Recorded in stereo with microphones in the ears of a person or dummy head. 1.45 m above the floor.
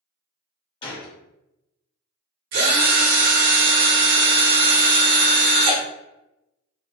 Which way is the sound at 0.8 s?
25° left (ahead or behind).